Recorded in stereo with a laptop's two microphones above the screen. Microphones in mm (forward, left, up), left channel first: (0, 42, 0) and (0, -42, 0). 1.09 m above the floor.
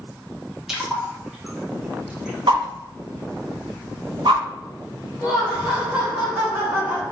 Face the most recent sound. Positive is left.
turn(degrees=-15)  # may be behind; listen again after turning